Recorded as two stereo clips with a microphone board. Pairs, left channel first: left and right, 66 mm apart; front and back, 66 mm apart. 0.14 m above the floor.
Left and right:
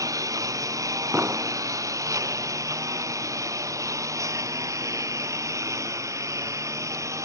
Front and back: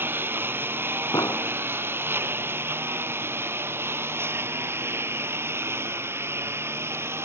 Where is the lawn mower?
120° right; by 7.3 s 130° right.